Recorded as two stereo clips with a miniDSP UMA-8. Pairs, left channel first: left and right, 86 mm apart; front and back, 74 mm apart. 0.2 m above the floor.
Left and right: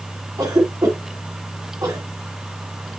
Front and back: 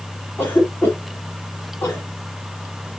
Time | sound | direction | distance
0.4 | a cough | 55° right | 2.5 m